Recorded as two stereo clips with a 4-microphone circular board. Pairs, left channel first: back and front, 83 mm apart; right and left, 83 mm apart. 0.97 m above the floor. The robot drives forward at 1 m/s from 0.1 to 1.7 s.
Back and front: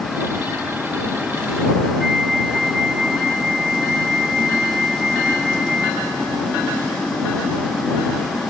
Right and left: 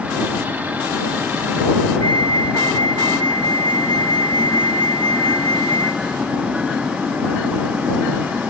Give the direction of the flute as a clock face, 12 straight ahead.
3 o'clock.